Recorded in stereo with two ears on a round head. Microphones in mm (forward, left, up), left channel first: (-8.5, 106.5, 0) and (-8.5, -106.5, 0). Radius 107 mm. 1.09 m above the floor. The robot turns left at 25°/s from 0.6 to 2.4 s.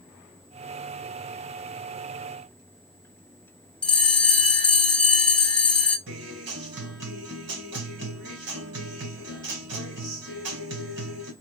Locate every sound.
3.8 s a bell: 5° left (ahead or behind), 0.9 m
6.1 s a guitar: 70° right (ahead or behind), 2 m